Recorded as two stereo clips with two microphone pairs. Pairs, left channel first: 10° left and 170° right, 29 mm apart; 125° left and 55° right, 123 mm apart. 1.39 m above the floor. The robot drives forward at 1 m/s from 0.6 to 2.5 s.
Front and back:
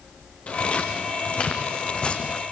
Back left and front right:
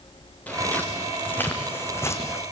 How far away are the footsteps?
About 6 m.